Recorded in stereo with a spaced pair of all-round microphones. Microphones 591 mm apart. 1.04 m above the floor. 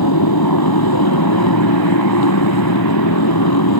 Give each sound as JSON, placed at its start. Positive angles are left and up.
{"t": 0.0, "sound": "a motorcycle", "side_deg": 35}